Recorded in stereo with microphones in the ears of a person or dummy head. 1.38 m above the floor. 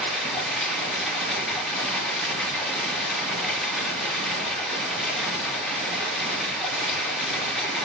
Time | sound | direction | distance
0.0 | running water | centre (ahead or behind) | 2.5 m